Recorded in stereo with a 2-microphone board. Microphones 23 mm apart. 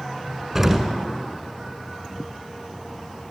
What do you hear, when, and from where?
0.6 s an explosion: 15° right (ahead or behind), 1.7 m